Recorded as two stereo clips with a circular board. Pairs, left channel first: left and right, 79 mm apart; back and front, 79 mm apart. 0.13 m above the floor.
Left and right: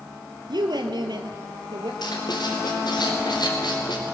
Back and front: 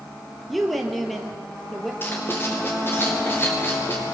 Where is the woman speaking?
90° right, 2.5 m.